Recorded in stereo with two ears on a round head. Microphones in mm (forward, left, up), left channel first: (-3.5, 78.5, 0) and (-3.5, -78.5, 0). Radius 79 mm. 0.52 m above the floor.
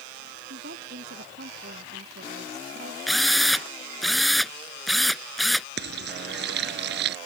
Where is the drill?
Centre (ahead or behind).